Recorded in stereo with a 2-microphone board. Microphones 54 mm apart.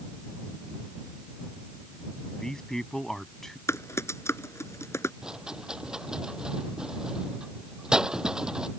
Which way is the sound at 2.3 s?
15° left (ahead or behind).